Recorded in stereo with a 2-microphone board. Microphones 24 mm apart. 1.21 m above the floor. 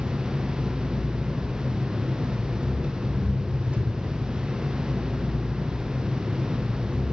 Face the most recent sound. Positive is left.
turn(degrees=-70)  # may be behind; listen again after turning